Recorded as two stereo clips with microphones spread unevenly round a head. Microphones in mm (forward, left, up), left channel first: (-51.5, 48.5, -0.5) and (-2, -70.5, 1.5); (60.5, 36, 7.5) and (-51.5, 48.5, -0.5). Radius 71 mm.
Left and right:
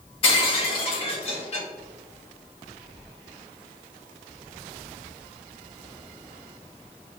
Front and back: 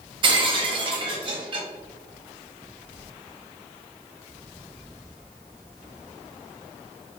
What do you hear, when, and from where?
0.2 s breaking glass: 140° left, 1.0 m